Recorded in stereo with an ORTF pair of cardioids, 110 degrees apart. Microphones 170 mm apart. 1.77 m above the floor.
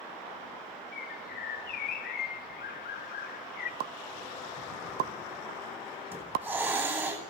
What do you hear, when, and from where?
0.9 s a bird: 70° left, 1.7 m
3.8 s a pop: 65° right, 1.1 m
6.1 s a hiss: 15° right, 9 m